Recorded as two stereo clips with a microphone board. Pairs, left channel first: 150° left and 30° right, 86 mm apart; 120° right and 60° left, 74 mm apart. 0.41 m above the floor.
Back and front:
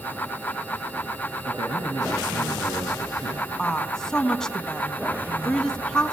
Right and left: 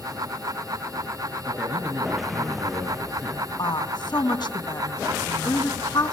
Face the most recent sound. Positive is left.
turn(degrees=-125)